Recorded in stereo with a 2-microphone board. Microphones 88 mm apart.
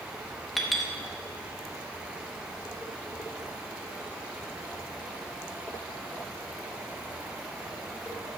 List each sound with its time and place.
0.6 s a clink: centre (ahead or behind), 1.1 m